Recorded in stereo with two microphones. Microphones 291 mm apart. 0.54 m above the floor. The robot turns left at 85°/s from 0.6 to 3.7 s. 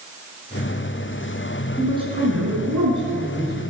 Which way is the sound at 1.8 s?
Straight ahead.